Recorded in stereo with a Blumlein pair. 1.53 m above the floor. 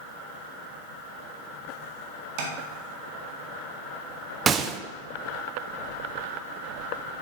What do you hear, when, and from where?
2.4 s tapping: 45° right, 1.8 m
4.5 s a gunshot: 25° right, 0.6 m